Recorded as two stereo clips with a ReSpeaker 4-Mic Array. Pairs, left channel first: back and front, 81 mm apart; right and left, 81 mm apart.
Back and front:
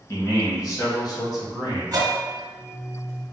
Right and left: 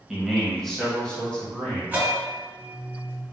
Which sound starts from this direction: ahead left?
A bell, at 1.9 s.